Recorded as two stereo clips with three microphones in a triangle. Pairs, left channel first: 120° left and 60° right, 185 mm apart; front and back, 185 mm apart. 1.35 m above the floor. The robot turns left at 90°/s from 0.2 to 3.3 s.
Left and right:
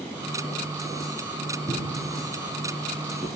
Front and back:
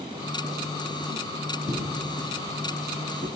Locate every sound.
1.7 s footsteps: 120° right, 1.3 m; by 3.3 s 50° left, 1.9 m